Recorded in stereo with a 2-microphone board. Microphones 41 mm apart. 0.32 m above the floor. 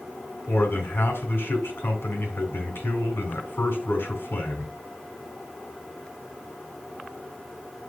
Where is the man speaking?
60° left (ahead or behind), 2.5 m.